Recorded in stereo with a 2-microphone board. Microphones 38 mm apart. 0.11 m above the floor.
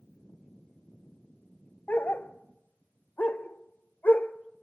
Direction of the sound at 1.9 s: 50° left (ahead or behind).